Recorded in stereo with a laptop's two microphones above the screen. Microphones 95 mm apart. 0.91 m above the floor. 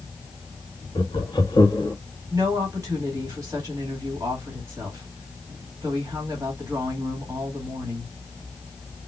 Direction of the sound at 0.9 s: 55° left (ahead or behind).